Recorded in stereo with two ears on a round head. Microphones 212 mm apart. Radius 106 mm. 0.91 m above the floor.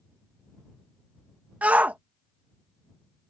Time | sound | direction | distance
1.6 | a shout | 5° right (ahead or behind) | ?